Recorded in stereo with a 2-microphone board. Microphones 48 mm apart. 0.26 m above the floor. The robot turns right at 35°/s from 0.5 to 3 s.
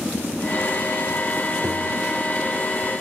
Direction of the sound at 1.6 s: 75° right (ahead or behind).